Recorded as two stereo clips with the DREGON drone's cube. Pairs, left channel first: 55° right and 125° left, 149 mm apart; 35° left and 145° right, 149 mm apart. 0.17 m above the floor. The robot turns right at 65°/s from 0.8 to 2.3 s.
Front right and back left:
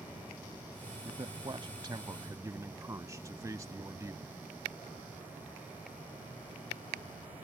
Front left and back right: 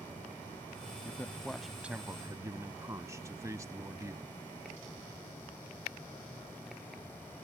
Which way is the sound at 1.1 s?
90° left.